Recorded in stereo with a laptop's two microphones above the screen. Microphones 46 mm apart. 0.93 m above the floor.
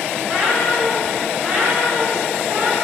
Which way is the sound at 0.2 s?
15° right (ahead or behind).